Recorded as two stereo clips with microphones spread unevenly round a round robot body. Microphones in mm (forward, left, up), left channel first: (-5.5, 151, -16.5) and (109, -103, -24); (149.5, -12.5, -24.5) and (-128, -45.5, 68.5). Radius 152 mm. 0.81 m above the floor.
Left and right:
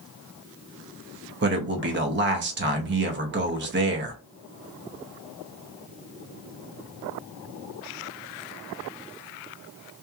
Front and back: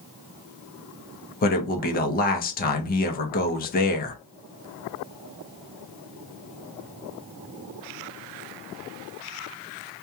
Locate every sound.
1.4 s a man speaking: 25° right, 0.7 m